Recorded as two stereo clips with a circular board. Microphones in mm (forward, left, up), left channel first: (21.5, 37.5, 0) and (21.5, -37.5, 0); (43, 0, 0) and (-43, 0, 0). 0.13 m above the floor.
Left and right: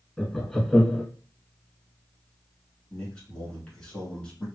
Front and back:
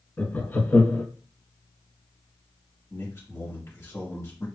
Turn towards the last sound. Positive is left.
turn(degrees=25)